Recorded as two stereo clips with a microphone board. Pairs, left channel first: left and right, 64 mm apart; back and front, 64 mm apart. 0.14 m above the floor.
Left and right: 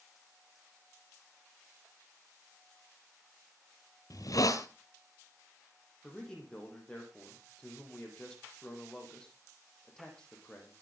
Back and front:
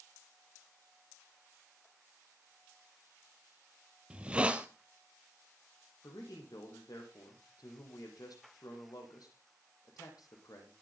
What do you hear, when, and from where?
4.1 s a hiss: 70° left, 1.1 m
6.0 s a man speaking: 165° left, 4.5 m